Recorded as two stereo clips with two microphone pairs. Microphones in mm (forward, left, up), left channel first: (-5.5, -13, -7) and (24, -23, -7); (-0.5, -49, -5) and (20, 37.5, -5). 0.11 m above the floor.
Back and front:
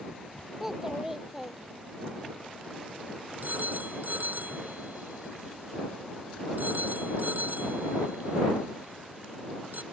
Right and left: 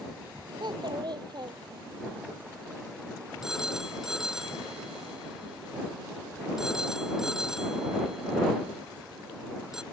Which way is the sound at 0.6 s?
60° left.